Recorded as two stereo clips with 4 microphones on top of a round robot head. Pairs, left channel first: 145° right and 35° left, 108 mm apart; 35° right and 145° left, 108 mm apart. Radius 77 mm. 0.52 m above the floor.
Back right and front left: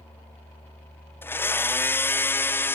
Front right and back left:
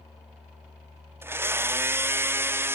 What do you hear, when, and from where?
1.2 s a blender: straight behind